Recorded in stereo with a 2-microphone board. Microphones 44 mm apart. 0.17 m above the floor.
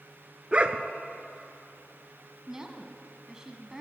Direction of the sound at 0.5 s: 30° right (ahead or behind).